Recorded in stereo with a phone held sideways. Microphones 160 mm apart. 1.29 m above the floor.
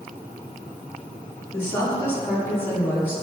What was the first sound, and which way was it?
A woman speaking, 15° left (ahead or behind).